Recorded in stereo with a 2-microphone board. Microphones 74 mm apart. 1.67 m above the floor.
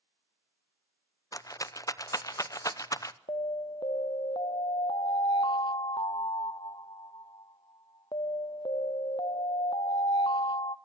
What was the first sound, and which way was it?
A rattle, 45° left (ahead or behind).